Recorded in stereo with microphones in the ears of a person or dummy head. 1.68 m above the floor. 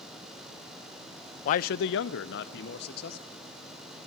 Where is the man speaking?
45° left (ahead or behind), 0.6 m; by 3.2 s 55° left (ahead or behind), 1.5 m.